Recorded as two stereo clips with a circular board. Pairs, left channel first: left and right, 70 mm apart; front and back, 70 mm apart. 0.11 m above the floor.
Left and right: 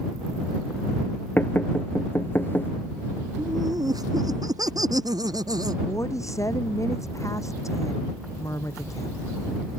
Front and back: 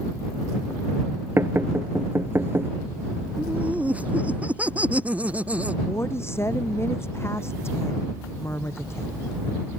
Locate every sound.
1.4 s knocking: 140° left
3.4 s laughter: 110° right
5.9 s a woman speaking: 50° left